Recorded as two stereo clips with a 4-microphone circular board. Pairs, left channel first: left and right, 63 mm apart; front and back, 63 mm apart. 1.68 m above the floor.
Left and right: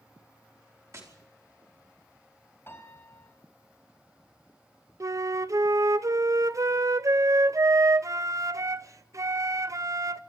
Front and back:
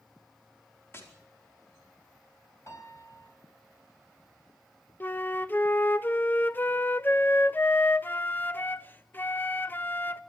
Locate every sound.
0.9 s tapping: 50° right, 5 m
2.7 s a piano: 40° left, 4.5 m
5.0 s a flute: 55° right, 0.7 m